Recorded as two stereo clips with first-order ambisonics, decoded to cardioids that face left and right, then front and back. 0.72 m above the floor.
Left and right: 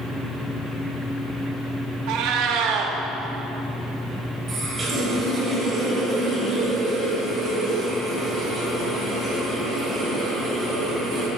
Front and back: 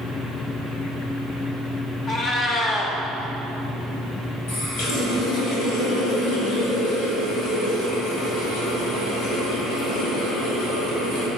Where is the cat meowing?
65° right, 0.7 m.